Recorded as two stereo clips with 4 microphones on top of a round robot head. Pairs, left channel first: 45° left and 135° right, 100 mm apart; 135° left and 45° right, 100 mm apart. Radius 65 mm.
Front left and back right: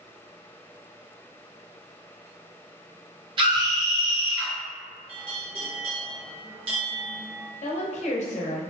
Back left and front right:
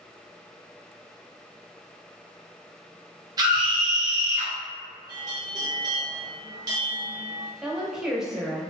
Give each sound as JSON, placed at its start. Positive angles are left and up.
{"t": 3.4, "sound": "a scream", "azimuth_deg": -95, "distance_m": 0.6}
{"t": 5.1, "sound": "a bell", "azimuth_deg": -100, "distance_m": 0.8}
{"t": 7.6, "sound": "a woman speaking", "azimuth_deg": 40, "distance_m": 0.6}